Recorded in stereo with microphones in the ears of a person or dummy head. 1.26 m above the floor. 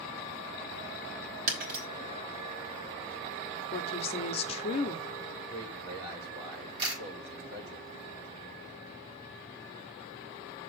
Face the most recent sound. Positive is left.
turn(degrees=-30)  # may be behind; listen again after turning